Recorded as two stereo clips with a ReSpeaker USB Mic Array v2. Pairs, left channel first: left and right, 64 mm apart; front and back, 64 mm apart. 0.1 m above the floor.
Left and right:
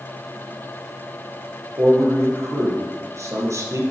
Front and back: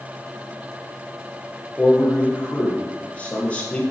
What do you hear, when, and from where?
1.8 s a man speaking: 70° right, 3 m